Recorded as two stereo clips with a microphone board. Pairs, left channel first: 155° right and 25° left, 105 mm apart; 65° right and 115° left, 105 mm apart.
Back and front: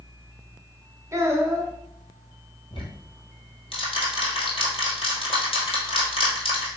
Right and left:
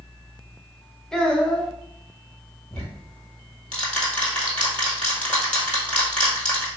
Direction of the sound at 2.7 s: 145° right.